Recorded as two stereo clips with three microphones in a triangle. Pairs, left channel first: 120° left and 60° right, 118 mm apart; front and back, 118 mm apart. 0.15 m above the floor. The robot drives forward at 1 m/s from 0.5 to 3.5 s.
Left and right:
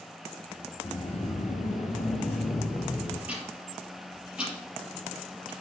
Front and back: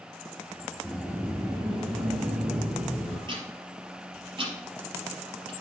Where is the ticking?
140° right, 4 m; by 5.5 s 145° right, 4 m.